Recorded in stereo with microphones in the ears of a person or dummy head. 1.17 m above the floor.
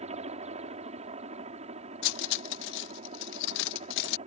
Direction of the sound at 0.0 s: 30° right (ahead or behind).